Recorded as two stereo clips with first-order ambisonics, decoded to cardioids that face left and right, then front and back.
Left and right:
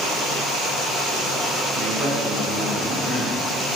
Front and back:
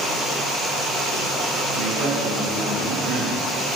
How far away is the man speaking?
About 1.3 m.